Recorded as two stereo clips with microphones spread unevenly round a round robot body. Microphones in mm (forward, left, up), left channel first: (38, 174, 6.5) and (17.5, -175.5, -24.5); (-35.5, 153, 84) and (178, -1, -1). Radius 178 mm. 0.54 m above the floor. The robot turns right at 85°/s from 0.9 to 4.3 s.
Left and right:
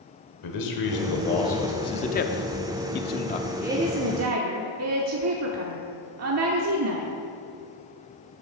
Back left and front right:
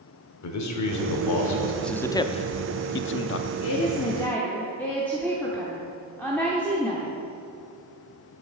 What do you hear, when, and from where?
0.4 s a man speaking: 120° left, 1.8 m; by 1.7 s 170° right, 1.8 m
1.8 s a man speaking: 15° left, 0.7 m; by 3.5 s 160° left, 0.7 m
3.6 s a woman speaking: 175° right, 0.9 m; by 7.1 s 115° right, 0.9 m